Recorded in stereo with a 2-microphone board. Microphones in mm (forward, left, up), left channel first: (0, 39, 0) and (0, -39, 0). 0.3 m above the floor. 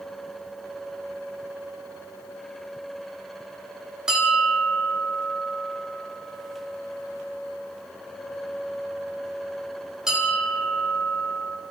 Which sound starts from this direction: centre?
A bell, at 4.1 s.